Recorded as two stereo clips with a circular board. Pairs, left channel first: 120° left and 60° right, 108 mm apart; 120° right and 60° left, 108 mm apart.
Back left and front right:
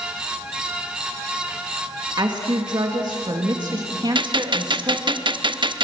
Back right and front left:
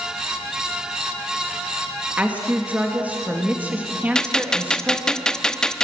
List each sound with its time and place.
2.2 s a woman speaking: 15° right, 1.9 m
4.2 s a gunshot: 40° right, 0.6 m